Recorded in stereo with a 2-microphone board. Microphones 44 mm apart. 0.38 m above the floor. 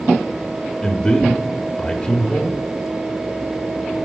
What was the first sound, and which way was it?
A man speaking, 20° left (ahead or behind).